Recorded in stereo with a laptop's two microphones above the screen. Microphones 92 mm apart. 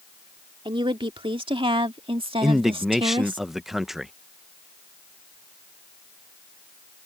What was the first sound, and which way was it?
A woman speaking, 65° right (ahead or behind).